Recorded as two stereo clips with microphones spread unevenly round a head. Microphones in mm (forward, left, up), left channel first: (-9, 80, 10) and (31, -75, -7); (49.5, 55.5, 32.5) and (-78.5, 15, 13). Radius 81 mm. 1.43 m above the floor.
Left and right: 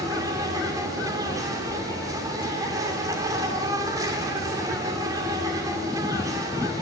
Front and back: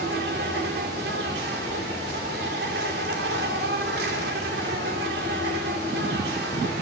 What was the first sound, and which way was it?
An insect, 145° right.